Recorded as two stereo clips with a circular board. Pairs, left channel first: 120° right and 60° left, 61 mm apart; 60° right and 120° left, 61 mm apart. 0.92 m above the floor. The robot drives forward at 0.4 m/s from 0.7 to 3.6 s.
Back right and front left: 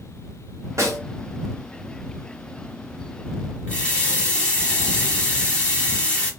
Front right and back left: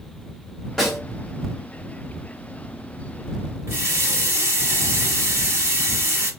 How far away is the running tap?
About 1.4 m.